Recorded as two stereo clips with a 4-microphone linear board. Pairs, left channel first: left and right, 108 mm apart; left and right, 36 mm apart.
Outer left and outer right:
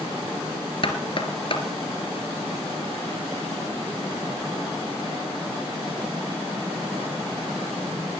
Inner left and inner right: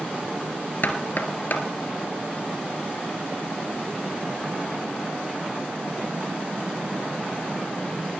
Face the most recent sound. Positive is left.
turn(degrees=55)  # may be behind; listen again after turning